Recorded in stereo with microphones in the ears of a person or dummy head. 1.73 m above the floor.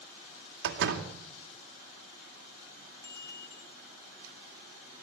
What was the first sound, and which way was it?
A door slam, 65° right (ahead or behind).